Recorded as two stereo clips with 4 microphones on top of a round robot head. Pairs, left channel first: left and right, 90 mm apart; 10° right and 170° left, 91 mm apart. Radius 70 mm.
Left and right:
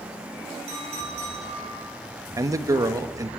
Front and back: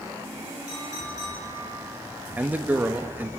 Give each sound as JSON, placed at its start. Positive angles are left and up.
{"t": 0.7, "sound": "a clink", "azimuth_deg": -70, "distance_m": 10.0}
{"t": 2.4, "sound": "a man speaking", "azimuth_deg": -120, "distance_m": 1.3}